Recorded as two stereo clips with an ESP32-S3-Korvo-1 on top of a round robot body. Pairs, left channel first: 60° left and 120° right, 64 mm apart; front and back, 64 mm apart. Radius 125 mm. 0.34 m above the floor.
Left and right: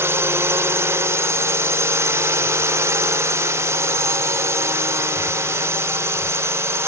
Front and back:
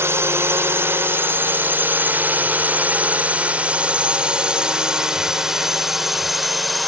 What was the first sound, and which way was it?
A drone, 150° right.